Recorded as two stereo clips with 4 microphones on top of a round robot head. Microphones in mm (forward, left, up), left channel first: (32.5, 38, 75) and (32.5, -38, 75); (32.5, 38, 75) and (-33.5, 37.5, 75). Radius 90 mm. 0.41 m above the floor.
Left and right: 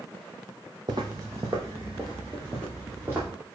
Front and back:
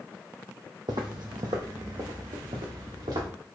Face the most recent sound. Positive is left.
turn(degrees=-160)